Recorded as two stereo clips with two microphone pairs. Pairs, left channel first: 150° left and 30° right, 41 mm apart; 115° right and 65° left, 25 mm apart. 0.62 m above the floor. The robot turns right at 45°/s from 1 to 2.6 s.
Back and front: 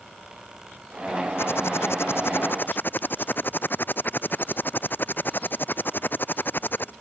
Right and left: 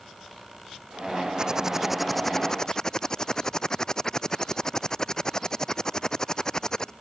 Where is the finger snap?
No finger snap in this recording.